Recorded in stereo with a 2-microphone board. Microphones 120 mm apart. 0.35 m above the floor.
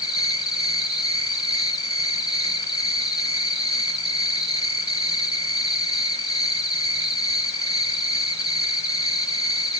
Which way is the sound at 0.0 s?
30° left (ahead or behind).